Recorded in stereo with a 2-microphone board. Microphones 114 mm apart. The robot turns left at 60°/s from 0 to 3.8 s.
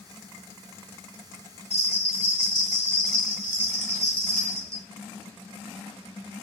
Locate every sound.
1.7 s a bell: 95° left, 1.2 m; by 4.8 s 30° right, 1.2 m